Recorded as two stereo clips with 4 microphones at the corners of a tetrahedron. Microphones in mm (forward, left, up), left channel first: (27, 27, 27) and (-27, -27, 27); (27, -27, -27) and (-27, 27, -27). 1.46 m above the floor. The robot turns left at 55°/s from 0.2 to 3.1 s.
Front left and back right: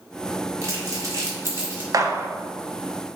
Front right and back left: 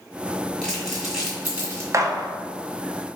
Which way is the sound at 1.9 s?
175° right.